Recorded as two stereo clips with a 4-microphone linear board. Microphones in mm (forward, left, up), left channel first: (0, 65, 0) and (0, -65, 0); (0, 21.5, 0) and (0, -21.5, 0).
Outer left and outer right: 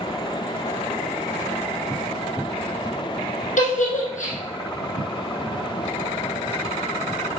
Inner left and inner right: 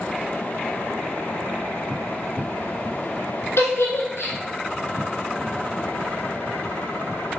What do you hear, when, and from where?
3.6 s a giggle: 75° left (ahead or behind), 3.5 m